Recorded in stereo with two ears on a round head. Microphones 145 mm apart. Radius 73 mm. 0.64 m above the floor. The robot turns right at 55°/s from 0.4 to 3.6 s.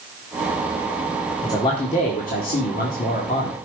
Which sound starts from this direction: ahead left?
A man speaking, at 1.4 s.